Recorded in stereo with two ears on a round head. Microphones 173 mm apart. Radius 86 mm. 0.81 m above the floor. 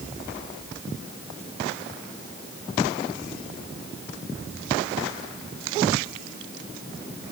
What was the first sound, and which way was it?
Only background noise.